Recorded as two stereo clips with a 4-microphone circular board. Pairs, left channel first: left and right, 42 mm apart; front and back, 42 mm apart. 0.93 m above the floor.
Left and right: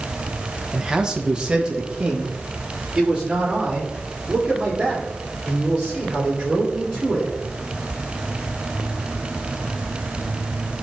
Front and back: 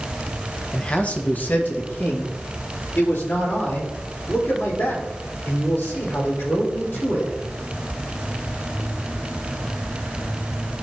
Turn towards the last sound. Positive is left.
turn(degrees=-20)